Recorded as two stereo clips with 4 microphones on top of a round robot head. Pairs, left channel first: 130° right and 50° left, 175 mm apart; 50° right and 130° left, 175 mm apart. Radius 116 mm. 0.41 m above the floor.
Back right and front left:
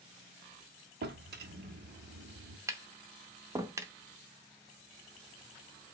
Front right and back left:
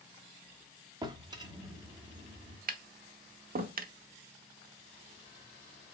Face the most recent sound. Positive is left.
turn(degrees=120)